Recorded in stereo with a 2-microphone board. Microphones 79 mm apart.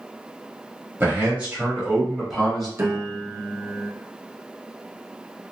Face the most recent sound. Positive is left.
turn(degrees=-35)  # may be behind; listen again after turning